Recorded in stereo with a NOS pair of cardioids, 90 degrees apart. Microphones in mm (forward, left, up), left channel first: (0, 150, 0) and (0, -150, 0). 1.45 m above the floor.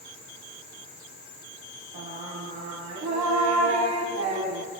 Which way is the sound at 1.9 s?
65° right.